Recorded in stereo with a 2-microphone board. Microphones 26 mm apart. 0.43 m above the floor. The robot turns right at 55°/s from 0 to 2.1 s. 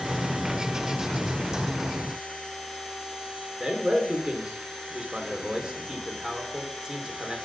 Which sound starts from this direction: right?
A man speaking, at 3.6 s.